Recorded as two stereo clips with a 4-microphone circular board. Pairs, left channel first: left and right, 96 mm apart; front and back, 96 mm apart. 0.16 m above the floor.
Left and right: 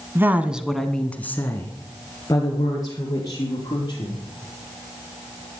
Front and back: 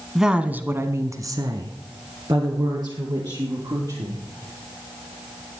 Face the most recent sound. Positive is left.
turn(degrees=135)